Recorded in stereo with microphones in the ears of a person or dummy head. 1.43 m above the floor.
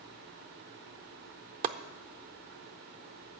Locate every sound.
1.6 s chopping: 35° right (ahead or behind), 0.5 m